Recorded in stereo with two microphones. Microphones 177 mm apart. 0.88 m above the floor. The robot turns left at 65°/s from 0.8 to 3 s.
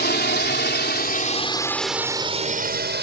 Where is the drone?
65° left (ahead or behind); by 3.0 s 75° right (ahead or behind).